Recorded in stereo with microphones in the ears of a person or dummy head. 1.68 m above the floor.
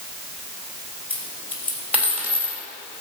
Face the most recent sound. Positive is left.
turn(degrees=10)  # may be behind; listen again after turning